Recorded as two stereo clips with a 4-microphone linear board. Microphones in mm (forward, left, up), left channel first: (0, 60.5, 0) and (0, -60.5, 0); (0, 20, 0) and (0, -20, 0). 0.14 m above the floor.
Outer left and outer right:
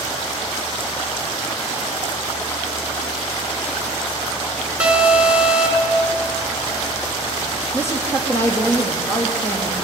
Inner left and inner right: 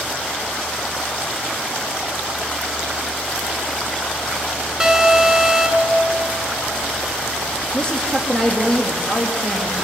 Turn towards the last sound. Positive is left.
turn(degrees=15)  # may be behind; listen again after turning